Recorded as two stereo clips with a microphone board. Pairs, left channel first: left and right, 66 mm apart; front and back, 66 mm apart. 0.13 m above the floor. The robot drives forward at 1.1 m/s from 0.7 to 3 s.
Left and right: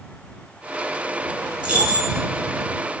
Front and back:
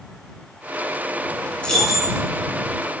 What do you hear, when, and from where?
1.6 s keys jangling: 50° right, 0.8 m; by 2.2 s 150° right, 0.8 m